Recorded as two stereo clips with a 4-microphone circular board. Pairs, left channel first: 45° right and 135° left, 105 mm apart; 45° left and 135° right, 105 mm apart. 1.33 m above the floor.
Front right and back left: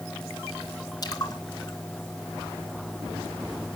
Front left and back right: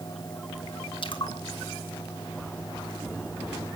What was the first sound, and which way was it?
A splash, 5° left.